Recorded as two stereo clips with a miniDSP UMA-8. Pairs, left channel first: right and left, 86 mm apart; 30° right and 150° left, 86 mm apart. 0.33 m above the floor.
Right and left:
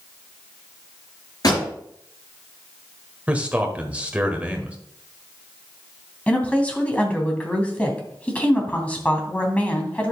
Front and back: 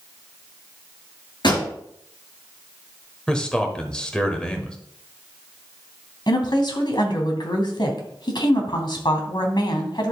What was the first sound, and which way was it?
A pop, 50° right.